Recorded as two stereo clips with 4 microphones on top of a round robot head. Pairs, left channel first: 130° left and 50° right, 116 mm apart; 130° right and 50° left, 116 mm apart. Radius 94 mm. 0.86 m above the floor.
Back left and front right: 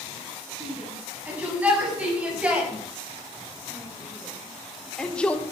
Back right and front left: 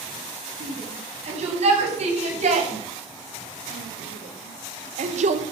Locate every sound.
0.6 s a shout: 25° left, 8.5 m; by 5.4 s 50° left, 2.5 m